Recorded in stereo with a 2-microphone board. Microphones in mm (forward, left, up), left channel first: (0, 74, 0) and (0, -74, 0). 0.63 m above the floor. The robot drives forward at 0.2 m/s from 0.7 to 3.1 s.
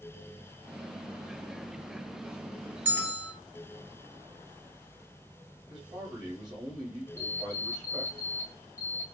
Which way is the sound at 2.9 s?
15° right (ahead or behind).